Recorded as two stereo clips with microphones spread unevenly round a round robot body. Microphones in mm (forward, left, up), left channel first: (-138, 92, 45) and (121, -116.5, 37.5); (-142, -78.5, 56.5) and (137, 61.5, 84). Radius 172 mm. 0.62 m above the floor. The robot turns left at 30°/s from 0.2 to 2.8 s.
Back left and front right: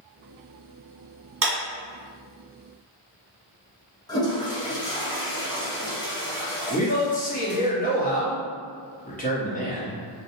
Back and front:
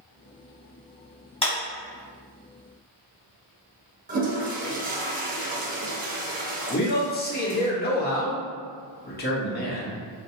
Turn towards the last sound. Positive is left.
turn(degrees=-170)